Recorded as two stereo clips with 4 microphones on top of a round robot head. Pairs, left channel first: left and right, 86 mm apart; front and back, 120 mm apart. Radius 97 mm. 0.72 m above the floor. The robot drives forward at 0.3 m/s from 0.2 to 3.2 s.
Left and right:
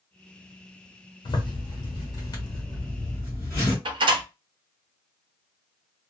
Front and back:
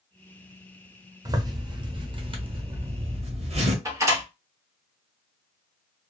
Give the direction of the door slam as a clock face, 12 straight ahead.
4 o'clock.